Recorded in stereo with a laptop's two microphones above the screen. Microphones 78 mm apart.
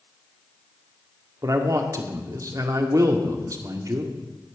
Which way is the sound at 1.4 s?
45° right (ahead or behind).